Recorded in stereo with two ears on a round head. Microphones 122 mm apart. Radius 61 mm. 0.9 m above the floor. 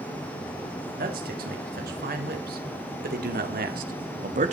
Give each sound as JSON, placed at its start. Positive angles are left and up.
{"t": 1.0, "sound": "a man speaking", "side_deg": -75, "distance_m": 6.5}